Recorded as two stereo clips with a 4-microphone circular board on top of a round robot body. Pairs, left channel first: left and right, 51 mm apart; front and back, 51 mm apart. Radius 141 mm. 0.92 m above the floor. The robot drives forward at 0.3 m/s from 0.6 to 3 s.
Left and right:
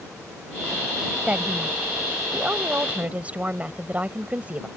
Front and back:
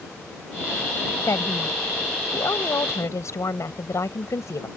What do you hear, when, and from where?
1.3 s a woman speaking: 25° right